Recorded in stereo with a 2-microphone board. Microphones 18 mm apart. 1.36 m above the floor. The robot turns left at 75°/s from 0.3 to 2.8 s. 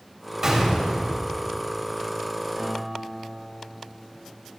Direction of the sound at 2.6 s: 80° right.